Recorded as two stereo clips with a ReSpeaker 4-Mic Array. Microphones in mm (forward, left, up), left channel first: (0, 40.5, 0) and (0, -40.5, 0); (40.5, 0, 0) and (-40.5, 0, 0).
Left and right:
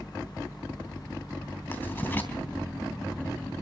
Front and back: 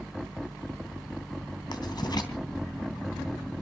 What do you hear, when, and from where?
1.7 s writing: 25° left, 3 m